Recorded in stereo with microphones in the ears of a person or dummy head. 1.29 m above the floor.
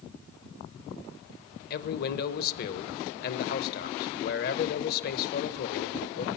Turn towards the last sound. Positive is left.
turn(degrees=55)  # may be behind; listen again after turning